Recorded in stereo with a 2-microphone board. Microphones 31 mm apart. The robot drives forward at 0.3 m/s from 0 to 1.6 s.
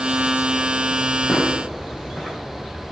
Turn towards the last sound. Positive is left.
turn(degrees=-5)  # may be behind; listen again after turning